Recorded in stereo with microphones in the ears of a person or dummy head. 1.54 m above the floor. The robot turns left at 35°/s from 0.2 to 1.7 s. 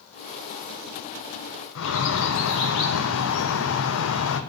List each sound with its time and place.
1.8 s a bird: 65° left (ahead or behind), 0.9 m